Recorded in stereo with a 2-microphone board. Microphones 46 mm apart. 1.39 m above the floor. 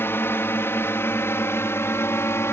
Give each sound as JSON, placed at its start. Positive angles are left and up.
{"t": 0.0, "sound": "a drone", "side_deg": 55}